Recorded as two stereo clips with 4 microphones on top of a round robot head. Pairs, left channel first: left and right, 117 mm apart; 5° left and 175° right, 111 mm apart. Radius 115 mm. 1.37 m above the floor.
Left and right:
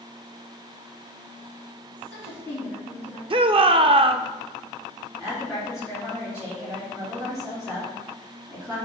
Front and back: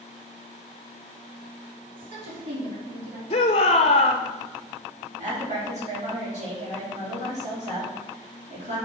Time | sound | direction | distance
1.9 | a woman speaking | 170° right | 3 m
3.3 | a shout | 45° right | 0.6 m
5.2 | a woman speaking | straight behind | 4 m